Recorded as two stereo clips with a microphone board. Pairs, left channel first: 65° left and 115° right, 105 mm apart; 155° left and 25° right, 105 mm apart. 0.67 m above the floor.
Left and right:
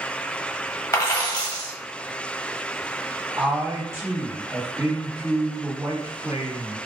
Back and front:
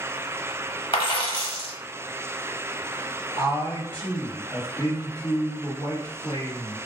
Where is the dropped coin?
125° left, 1.1 m.